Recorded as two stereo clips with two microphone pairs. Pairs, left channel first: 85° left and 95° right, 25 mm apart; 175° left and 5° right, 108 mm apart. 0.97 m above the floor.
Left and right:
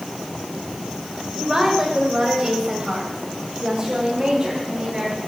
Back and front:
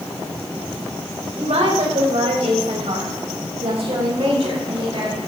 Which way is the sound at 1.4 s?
20° right.